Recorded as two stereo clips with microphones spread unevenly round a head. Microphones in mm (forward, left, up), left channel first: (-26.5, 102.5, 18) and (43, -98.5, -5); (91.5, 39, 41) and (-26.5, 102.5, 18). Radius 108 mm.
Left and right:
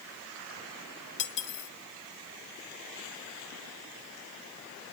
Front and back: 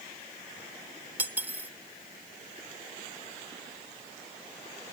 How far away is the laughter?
I don't hear laughter.